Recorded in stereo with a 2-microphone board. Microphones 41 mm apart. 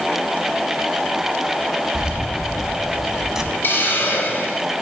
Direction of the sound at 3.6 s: 55° left (ahead or behind).